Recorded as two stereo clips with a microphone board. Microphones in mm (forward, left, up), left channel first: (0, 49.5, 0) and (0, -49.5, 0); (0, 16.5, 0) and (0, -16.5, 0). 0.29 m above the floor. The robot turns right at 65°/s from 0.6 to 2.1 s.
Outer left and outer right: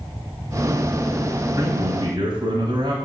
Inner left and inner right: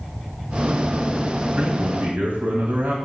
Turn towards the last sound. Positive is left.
turn(degrees=-90)